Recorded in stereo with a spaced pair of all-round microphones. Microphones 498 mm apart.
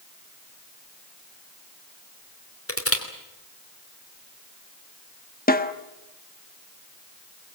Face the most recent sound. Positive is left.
turn(degrees=15)  # may be behind; listen again after turning